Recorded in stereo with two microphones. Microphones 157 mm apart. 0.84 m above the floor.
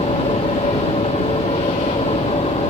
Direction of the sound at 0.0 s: 40° left (ahead or behind).